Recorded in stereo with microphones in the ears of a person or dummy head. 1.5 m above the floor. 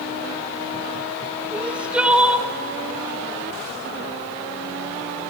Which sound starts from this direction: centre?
Crying, at 1.5 s.